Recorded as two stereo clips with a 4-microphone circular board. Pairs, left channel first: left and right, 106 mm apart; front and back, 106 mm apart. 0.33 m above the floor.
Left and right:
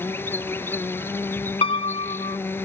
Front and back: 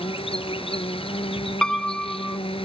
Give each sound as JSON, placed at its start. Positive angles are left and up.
{"t": 0.0, "sound": "an insect", "azimuth_deg": 20}
{"t": 1.6, "sound": "a piano", "azimuth_deg": 80}